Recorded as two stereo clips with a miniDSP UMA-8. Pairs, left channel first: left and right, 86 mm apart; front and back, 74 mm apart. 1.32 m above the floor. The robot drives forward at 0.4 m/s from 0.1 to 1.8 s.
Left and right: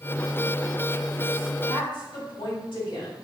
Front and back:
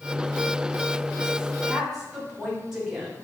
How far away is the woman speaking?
About 2 m.